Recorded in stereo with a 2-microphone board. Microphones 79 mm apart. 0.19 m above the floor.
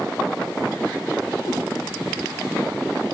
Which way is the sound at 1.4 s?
75° left (ahead or behind).